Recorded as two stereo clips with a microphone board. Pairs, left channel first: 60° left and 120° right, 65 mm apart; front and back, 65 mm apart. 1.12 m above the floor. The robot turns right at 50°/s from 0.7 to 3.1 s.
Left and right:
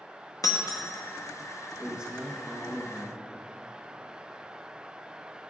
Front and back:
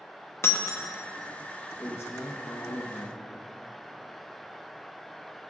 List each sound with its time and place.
0.4 s breaking glass: 45° left, 0.8 m; by 0.9 s 55° left, 0.8 m
1.8 s a man speaking: 55° right, 1.0 m; by 3.2 s 10° left, 1.0 m